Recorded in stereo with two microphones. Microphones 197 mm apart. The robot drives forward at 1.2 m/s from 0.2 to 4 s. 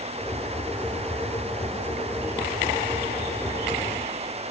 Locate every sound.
Only background noise.